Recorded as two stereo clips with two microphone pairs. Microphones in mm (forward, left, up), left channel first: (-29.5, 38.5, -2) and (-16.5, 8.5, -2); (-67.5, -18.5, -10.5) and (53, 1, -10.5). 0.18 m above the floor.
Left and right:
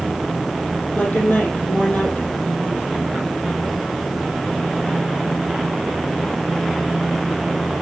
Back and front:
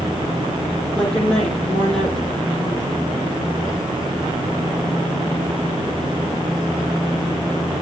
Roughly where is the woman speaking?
Left.